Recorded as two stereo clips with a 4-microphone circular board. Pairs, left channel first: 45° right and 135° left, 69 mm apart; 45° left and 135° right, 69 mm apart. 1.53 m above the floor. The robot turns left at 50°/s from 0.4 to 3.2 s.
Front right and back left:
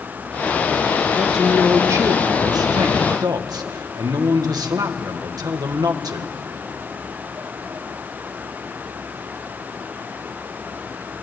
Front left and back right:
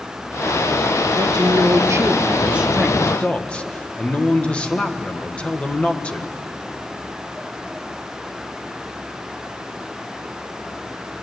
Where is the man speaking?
140° right, 1.6 m; by 6.3 s 115° left, 1.6 m.